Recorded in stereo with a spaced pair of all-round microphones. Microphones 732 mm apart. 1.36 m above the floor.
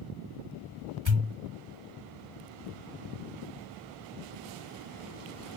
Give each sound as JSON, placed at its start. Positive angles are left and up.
{"t": 1.1, "sound": "a pop", "side_deg": -40, "distance_m": 1.7}